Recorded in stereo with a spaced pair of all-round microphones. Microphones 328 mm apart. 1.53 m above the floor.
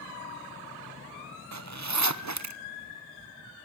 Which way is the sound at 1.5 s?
55° right (ahead or behind).